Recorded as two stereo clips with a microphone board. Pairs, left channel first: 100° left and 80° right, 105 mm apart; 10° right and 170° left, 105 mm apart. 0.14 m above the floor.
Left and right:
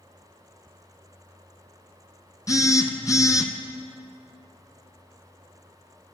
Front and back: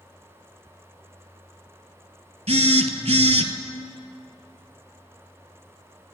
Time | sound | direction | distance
2.5 | a phone buzzing | 155° left | 0.6 m